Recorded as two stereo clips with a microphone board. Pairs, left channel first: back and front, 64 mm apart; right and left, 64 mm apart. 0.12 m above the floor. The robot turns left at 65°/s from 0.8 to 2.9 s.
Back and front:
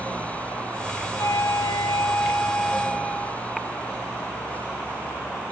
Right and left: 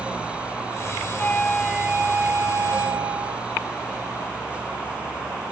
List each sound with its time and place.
1.2 s a flute: 155° right, 0.8 m; by 3.5 s 95° left, 0.8 m